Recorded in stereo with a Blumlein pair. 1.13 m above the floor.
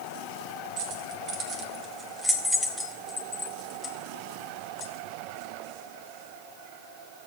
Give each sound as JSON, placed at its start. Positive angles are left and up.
{"t": 0.8, "sound": "keys jangling", "azimuth_deg": -40, "distance_m": 1.4}